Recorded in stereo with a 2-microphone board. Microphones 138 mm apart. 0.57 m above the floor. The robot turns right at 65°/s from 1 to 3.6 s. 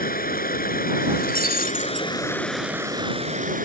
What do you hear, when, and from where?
0.0 s running water: 80° left; by 3.6 s 115° right
1.2 s breaking glass: 70° left; by 2.1 s 130° left